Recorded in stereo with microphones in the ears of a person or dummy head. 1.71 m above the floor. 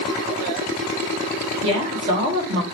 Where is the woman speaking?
35° right (ahead or behind), 1.6 m.